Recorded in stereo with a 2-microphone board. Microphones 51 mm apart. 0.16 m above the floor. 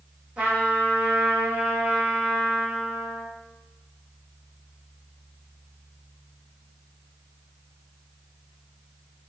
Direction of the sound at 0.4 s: 25° right (ahead or behind).